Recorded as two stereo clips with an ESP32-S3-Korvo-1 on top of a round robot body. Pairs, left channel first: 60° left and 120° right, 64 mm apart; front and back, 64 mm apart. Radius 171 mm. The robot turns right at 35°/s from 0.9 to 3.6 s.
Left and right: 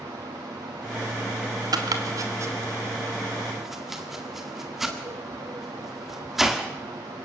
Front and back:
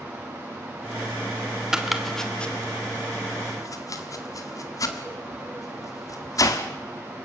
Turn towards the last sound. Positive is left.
turn(degrees=-35)